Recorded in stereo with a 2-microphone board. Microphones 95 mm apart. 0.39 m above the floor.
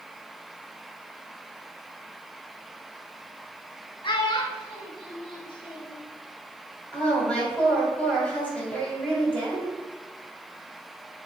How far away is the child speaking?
About 0.7 m.